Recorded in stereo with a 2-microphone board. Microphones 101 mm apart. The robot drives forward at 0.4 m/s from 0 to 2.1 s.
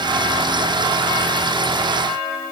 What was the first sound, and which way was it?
Only background noise.